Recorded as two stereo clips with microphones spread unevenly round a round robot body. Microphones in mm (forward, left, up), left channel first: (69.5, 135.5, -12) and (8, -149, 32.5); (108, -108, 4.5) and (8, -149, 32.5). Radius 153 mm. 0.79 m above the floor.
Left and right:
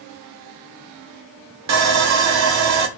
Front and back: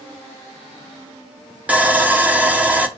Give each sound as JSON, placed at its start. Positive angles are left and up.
{"t": 1.7, "sound": "sawing", "azimuth_deg": -70, "distance_m": 0.9}